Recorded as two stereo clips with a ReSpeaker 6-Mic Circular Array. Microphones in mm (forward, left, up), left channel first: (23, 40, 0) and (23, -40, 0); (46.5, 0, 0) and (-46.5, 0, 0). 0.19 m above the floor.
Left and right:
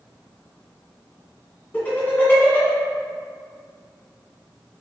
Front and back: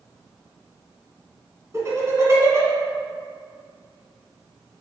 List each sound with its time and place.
1.7 s laughter: 150° left, 1.7 m